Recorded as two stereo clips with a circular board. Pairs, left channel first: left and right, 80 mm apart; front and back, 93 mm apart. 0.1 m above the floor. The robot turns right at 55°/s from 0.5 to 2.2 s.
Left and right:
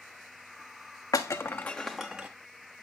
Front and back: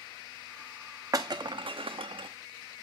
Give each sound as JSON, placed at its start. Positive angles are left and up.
{"t": 1.1, "sound": "breaking glass", "azimuth_deg": 130, "distance_m": 1.1}